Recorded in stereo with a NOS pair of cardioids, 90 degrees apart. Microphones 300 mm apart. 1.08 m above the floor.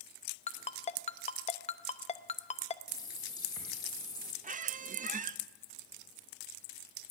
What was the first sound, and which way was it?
A ringtone, 25° left.